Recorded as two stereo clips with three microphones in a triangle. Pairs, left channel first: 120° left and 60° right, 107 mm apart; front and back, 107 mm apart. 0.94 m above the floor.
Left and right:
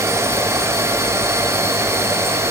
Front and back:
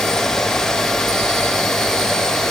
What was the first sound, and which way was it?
Only background noise.